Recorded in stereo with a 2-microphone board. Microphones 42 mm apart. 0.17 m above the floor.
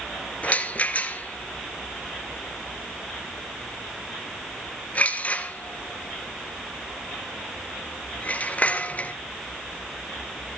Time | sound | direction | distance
0.4 | a rattle | 35° left (ahead or behind) | 1.6 m